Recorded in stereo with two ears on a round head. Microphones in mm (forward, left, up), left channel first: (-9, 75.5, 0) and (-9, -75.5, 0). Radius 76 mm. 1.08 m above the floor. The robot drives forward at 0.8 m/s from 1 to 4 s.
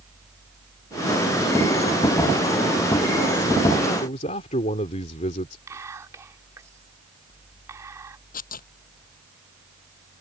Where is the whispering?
20° right (ahead or behind).